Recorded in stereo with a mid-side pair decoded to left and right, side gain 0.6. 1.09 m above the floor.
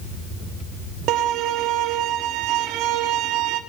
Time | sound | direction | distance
1.1 | a violin | 70° right | 2.5 m